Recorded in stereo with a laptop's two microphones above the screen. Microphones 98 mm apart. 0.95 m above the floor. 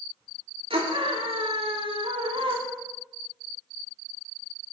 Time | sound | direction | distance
0.7 | a scream | 70° right (ahead or behind) | 2.5 m